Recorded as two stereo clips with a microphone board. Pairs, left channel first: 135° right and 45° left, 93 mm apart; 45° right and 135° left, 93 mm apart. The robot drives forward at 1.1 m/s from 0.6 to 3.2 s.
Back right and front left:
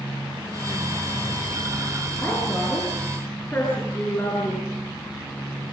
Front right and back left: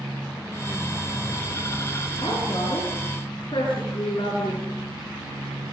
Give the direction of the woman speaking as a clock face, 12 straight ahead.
2 o'clock.